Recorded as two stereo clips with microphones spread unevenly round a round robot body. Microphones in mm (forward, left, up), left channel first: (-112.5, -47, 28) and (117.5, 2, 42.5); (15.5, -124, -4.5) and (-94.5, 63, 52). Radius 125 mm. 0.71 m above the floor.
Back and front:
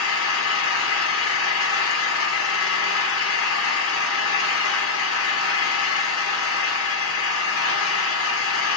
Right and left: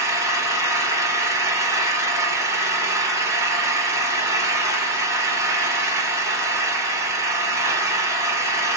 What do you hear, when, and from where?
0.0 s an engine running: 155° right, 1.1 m